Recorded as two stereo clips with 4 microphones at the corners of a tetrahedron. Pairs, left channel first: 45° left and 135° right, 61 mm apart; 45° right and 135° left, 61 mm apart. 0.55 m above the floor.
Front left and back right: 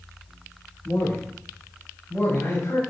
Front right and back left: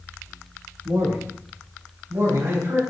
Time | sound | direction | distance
0.8 | a man speaking | 125° left | 6 m